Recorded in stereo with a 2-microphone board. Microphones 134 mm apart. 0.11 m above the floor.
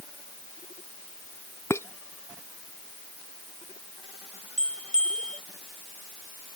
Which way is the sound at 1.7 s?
20° left (ahead or behind).